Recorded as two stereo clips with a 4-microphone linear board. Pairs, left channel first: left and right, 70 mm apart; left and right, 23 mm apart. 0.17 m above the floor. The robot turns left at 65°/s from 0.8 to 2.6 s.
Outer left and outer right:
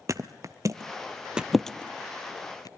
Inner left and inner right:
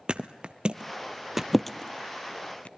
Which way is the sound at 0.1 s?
50° right (ahead or behind).